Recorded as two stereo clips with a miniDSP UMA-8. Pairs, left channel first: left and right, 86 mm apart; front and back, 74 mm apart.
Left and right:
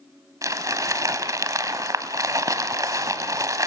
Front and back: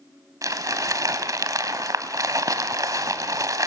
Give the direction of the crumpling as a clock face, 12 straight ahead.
5 o'clock.